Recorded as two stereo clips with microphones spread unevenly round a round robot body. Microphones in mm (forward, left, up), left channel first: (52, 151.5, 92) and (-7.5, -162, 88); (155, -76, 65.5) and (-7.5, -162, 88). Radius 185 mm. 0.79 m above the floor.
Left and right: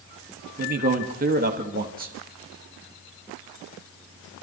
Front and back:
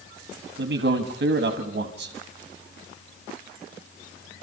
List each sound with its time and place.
0.6 s a man speaking: 160° right, 1.6 m